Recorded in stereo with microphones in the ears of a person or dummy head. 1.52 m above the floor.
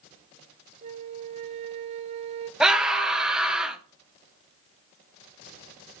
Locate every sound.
0.8 s a flute: 40° right (ahead or behind), 0.7 m
2.6 s a scream: 5° right (ahead or behind), 1.2 m